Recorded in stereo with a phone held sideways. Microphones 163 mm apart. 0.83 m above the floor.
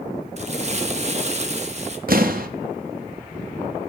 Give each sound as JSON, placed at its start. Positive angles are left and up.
{"t": 0.4, "sound": "crumpling", "side_deg": -45, "distance_m": 0.6}
{"t": 2.1, "sound": "an explosion", "side_deg": -65, "distance_m": 0.6}